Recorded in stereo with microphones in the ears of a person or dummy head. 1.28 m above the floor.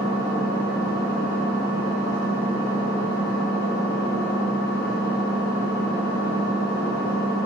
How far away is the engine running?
About 1.2 m.